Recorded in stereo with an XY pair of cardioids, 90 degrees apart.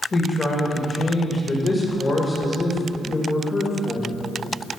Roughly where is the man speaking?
Ahead left.